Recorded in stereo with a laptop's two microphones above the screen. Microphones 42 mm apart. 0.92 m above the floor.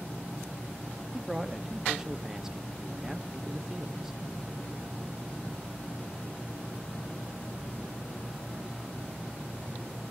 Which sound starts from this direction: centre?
A man speaking, at 1.1 s.